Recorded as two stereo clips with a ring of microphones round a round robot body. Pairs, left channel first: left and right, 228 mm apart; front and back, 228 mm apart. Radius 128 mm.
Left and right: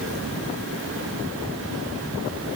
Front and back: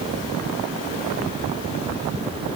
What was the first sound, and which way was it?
Only background noise.